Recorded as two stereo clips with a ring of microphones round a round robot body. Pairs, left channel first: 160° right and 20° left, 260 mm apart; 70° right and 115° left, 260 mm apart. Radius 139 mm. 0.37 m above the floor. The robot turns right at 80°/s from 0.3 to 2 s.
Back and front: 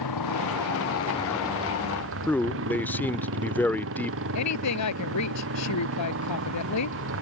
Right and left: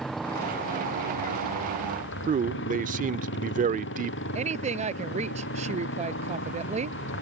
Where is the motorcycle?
155° right; by 7.2 s 20° right.